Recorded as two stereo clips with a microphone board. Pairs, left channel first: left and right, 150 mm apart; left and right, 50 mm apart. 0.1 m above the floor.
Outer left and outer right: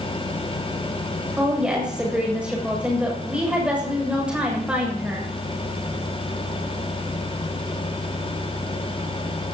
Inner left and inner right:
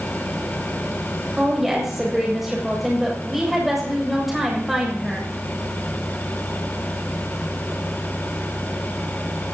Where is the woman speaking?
5° right (ahead or behind), 7.5 m.